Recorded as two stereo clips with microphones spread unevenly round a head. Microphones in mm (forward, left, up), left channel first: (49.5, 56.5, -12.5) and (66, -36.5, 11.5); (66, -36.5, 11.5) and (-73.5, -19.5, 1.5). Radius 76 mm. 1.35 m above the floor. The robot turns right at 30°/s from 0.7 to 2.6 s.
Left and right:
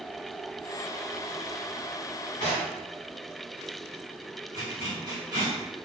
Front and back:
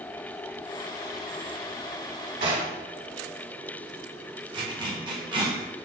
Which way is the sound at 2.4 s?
145° left.